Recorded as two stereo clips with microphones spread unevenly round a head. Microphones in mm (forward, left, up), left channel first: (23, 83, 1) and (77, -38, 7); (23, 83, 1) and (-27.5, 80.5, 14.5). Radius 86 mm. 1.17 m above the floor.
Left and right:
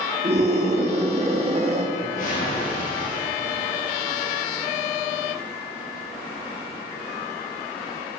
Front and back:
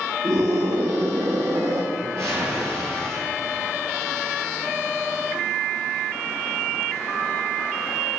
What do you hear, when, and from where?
0.2 s a scream: 125° right, 2.5 m
1.9 s a whoosh: 160° left, 8.5 m